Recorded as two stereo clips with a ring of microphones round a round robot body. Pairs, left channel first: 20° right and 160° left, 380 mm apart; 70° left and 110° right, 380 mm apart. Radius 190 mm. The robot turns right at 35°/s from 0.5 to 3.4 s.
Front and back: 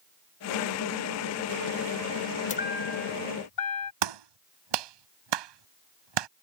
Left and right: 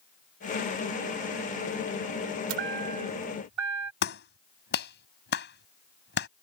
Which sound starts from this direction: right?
A chime, at 2.5 s.